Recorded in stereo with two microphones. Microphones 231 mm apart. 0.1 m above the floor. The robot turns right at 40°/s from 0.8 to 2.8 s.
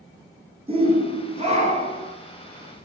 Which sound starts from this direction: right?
A shout, at 0.7 s.